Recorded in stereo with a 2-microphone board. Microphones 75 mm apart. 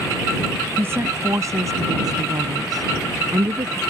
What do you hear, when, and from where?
0.8 s a woman speaking: 35° right (ahead or behind); by 3.8 s 70° right (ahead or behind)